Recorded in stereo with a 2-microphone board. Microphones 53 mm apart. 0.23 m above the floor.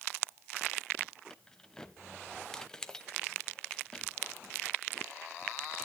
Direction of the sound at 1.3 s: 10° left (ahead or behind).